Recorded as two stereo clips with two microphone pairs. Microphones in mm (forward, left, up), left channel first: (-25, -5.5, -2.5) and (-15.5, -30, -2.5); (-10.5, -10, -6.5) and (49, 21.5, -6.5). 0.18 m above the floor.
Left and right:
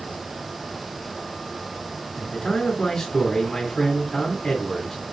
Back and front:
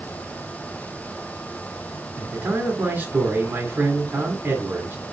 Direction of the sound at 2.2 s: 50° left.